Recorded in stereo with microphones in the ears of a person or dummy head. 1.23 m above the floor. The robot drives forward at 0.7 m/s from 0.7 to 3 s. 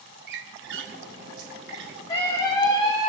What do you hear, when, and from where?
0.3 s a squeak: 60° right (ahead or behind), 1.2 m; by 2.0 s 50° right (ahead or behind), 1.3 m
2.1 s a scream: 25° left (ahead or behind), 4.5 m; by 3.1 s 20° left (ahead or behind), 5 m